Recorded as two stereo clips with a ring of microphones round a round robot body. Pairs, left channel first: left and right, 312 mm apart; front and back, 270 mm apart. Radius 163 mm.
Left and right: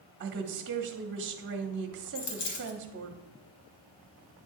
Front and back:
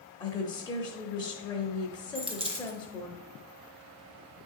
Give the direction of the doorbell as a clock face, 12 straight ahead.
I don't hear a doorbell.